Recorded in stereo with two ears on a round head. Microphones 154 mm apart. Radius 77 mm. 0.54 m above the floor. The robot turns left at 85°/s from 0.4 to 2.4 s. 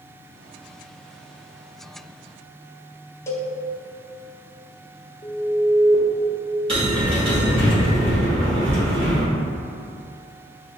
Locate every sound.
3.3 s a cowbell: 15° left (ahead or behind), 0.6 m
5.2 s an alarm: 30° left (ahead or behind), 1.0 m
6.7 s a bell: 30° right (ahead or behind), 1.5 m